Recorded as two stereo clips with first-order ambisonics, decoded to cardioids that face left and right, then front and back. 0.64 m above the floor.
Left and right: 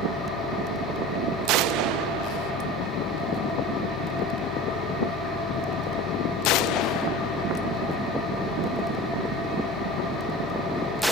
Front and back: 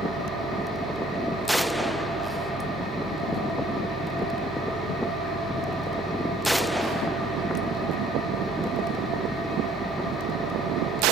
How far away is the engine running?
About 9 m.